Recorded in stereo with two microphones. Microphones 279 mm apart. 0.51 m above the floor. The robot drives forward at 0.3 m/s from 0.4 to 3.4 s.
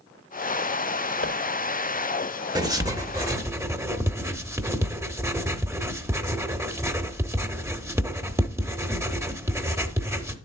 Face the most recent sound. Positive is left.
turn(degrees=-10)  # may be behind; listen again after turning